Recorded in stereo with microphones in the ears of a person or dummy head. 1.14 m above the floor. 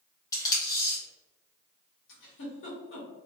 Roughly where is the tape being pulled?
Centre.